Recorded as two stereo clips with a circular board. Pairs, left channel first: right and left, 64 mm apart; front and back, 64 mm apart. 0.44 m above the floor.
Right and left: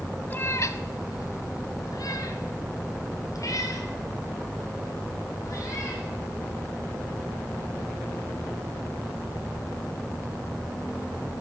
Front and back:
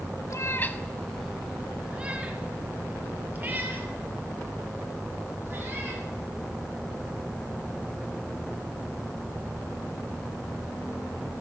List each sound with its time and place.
0.3 s a cat meowing: 30° right, 0.5 m; by 6.0 s 125° right, 4 m